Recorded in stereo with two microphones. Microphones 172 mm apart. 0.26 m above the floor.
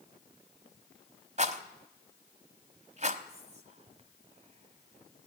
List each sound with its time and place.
1.4 s a rattle: 40° right (ahead or behind), 1.0 m
3.3 s whispering: 40° right (ahead or behind), 1.8 m